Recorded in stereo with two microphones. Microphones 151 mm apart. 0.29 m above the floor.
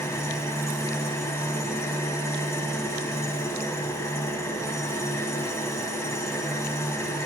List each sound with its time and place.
0.0 s an engine running: 20° left (ahead or behind), 1.4 m